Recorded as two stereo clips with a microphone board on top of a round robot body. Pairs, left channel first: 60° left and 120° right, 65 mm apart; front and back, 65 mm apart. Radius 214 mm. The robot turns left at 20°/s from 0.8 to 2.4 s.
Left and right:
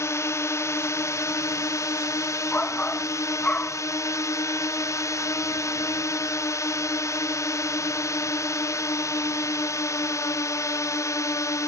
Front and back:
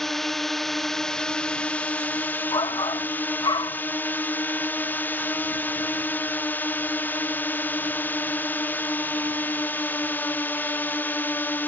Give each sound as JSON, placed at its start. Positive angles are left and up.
{"t": 0.0, "sound": "a drone", "azimuth_deg": 85}
{"t": 2.5, "sound": "a shout", "azimuth_deg": -10}